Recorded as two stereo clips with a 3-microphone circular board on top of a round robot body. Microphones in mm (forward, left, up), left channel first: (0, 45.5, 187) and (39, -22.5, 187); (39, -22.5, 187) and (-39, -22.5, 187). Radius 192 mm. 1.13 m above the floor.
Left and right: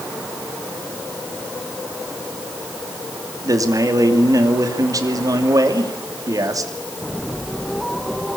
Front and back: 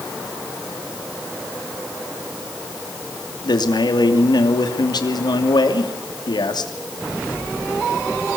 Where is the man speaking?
20° right, 2.5 m.